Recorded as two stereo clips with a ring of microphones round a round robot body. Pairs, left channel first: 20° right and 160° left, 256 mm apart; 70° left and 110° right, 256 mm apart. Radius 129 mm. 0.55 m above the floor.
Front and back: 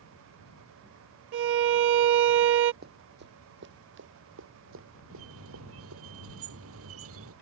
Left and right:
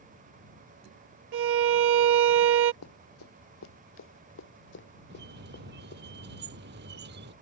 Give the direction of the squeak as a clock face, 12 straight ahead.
5 o'clock.